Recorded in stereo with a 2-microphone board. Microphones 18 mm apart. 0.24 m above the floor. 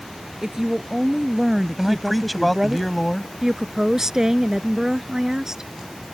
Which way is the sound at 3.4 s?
25° right (ahead or behind).